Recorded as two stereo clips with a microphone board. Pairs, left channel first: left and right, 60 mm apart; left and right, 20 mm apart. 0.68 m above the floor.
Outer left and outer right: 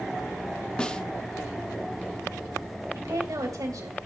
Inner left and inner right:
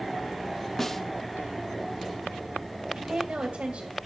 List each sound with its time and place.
0.8 s a snare drum: 15° left (ahead or behind), 0.8 m
2.9 s a woman speaking: 75° right (ahead or behind), 2.5 m